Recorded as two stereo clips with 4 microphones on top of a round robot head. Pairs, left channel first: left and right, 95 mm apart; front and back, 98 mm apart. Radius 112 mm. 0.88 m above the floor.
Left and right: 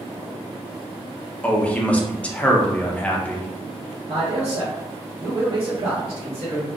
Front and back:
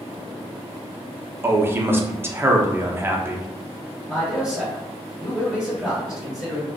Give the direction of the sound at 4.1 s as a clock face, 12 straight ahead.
3 o'clock.